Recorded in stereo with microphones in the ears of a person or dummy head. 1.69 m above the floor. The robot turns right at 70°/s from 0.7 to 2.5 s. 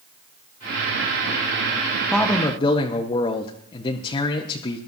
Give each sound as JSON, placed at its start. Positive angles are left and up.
{"t": 2.1, "sound": "a man speaking", "side_deg": 0, "distance_m": 1.0}